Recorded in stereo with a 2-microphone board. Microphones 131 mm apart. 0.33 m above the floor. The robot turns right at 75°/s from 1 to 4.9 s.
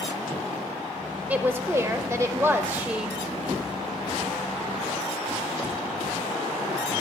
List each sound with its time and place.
1.3 s a woman speaking: 10° right (ahead or behind), 0.8 m; by 3.2 s 5° right (ahead or behind), 0.8 m